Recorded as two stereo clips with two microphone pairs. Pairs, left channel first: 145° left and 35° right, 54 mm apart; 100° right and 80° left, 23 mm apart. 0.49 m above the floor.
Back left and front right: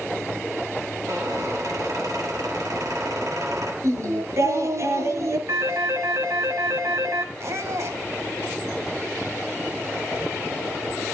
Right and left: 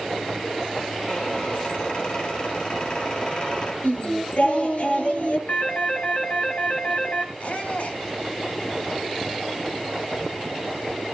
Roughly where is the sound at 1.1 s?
Ahead right.